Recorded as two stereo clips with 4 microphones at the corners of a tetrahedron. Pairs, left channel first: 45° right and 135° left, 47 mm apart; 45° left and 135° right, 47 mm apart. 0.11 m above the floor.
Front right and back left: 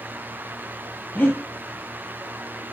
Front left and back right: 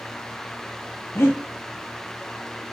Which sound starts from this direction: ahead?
Breathing, at 1.1 s.